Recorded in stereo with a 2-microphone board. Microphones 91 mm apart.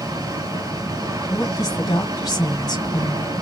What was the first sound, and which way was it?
Running water, 45° right (ahead or behind).